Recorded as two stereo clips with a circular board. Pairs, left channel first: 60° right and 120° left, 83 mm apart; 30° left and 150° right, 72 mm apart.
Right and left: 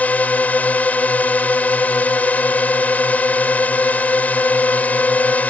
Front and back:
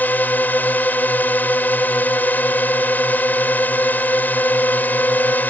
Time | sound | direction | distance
0.0 | a drone | 5° right | ?